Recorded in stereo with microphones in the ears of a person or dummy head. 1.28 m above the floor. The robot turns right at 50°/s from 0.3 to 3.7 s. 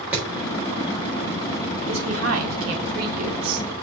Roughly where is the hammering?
Centre.